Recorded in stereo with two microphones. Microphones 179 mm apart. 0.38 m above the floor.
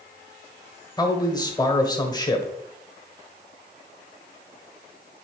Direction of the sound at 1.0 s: 20° left (ahead or behind).